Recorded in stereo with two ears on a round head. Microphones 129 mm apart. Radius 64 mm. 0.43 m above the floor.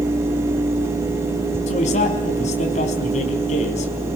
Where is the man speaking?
50° left (ahead or behind), 4.5 m.